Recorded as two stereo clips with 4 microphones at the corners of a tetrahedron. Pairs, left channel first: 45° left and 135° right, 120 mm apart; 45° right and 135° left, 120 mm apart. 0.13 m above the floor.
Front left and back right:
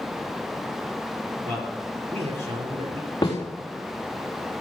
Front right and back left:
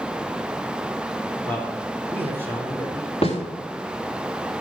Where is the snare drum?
15° right, 3.5 m.